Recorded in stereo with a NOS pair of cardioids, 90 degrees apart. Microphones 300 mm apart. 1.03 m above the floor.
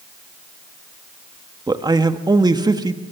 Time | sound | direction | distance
1.7 | a man speaking | 15° right | 1.6 m